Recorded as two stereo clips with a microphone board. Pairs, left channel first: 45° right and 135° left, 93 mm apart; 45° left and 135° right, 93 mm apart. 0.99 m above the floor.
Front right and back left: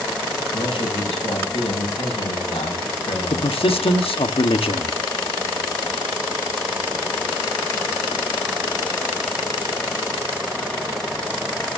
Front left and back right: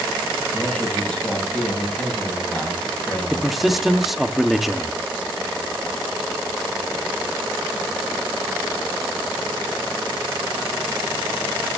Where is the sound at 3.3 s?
45° right, 1.6 m.